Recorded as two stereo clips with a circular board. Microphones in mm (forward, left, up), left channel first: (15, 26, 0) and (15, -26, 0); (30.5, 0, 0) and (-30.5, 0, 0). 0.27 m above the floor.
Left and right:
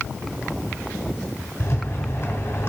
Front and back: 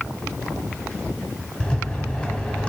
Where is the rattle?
65° left, 0.8 m.